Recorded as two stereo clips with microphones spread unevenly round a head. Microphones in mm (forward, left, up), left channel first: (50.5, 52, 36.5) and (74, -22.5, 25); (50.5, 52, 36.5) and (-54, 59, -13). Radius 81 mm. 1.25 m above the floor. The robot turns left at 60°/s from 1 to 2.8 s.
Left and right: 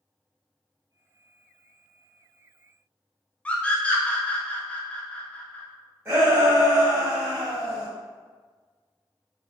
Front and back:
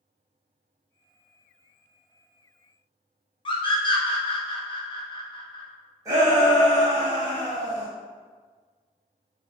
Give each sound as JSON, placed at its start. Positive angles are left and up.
{"t": 3.5, "sound": "a scream", "azimuth_deg": 35, "distance_m": 0.6}
{"t": 6.0, "sound": "a shout", "azimuth_deg": -140, "distance_m": 0.8}